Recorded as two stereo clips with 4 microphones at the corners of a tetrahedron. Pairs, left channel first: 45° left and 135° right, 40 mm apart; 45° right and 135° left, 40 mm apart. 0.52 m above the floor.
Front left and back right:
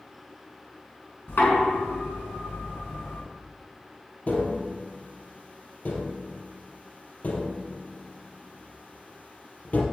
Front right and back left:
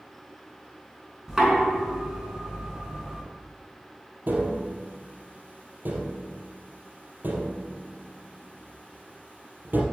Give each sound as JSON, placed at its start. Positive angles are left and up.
{"t": 1.3, "sound": "knocking", "azimuth_deg": 55, "distance_m": 4.5}
{"t": 4.3, "sound": "tapping", "azimuth_deg": 95, "distance_m": 3.5}